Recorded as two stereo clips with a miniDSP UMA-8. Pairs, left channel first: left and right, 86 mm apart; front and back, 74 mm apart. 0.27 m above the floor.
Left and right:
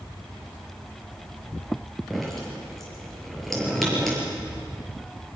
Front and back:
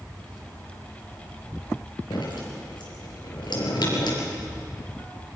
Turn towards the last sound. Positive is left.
turn(degrees=5)